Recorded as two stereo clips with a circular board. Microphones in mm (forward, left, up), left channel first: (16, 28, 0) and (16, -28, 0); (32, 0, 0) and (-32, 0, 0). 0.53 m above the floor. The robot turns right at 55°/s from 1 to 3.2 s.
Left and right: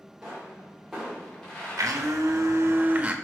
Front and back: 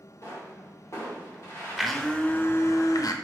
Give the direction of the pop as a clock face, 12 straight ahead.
12 o'clock.